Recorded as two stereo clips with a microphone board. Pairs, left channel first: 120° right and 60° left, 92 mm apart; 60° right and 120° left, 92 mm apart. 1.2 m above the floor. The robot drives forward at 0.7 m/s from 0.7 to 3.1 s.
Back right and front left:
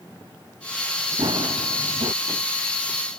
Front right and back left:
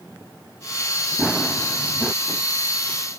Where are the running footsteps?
35° left; by 2.1 s 40° left.